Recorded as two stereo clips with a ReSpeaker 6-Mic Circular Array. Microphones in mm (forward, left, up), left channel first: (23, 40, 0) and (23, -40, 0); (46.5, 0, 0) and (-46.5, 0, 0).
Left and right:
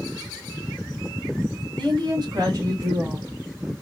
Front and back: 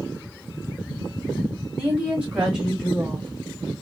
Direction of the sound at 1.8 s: 110° right.